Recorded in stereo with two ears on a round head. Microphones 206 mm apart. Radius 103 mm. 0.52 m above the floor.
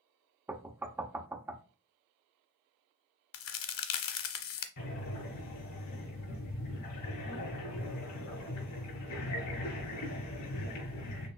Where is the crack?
60° left (ahead or behind), 0.7 m.